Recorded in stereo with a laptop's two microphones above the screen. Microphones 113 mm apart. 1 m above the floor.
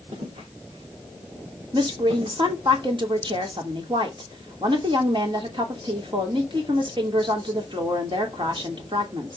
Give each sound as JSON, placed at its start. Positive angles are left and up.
{"t": 0.1, "sound": "footsteps", "side_deg": -70, "distance_m": 3.5}
{"t": 1.7, "sound": "a woman speaking", "side_deg": -45, "distance_m": 2.5}